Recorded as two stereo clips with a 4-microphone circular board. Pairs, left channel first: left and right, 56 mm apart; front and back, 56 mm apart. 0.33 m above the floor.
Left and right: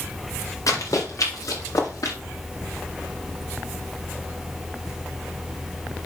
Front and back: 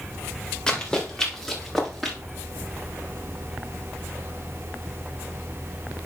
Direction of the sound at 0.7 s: 80° left.